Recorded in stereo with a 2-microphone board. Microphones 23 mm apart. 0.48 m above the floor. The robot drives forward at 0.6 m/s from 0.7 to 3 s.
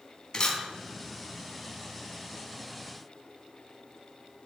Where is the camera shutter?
35° left (ahead or behind), 4 m.